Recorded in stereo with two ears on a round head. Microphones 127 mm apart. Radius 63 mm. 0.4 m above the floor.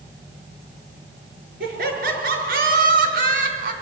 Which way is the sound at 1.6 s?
75° right (ahead or behind).